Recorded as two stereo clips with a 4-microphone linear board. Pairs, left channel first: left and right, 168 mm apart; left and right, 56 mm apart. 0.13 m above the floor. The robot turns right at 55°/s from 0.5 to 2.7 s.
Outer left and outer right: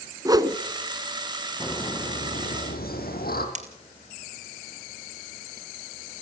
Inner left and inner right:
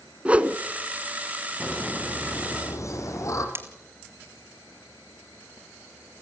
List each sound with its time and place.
0.2 s a whoosh: 25° right (ahead or behind), 1.1 m
1.6 s laughter: 20° left, 5.5 m; by 3.5 s 80° left, 5.5 m
3.5 s breaking glass: 45° right (ahead or behind), 1.7 m